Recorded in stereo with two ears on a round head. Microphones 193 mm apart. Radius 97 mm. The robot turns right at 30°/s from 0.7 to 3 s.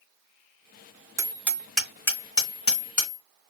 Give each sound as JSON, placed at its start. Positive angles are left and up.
{"t": 1.2, "sound": "hammering", "side_deg": -15, "distance_m": 1.6}